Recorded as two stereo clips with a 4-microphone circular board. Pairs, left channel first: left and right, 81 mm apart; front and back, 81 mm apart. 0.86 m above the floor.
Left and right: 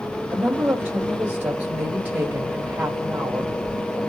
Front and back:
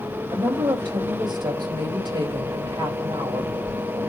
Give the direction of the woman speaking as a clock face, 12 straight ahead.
5 o'clock.